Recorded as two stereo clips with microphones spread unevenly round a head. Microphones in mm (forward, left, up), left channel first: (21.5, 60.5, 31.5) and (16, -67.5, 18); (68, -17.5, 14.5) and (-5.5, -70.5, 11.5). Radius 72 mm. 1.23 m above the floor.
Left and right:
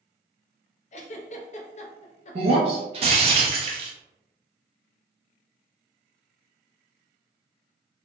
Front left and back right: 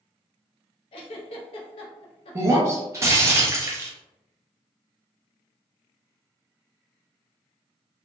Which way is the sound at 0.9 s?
55° left.